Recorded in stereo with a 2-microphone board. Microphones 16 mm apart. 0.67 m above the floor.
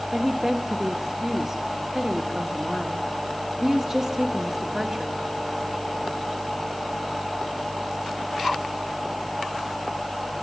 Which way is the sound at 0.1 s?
35° right (ahead or behind).